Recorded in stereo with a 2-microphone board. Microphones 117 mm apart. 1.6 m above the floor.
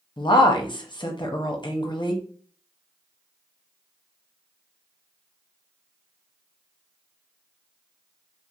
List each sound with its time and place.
0.2 s a woman speaking: 40° left (ahead or behind), 0.7 m